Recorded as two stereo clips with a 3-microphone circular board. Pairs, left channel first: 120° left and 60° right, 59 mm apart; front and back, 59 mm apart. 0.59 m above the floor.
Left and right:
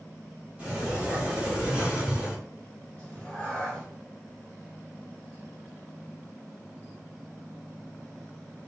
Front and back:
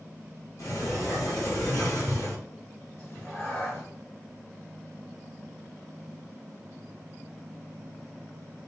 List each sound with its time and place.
0.6 s a sliding door: 10° left, 2 m
3.0 s a cat meowing: 45° left, 2.5 m